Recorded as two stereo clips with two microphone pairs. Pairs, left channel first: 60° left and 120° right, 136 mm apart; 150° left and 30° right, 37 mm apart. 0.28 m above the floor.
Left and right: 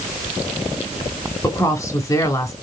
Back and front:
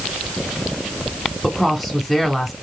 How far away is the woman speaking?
About 1.2 m.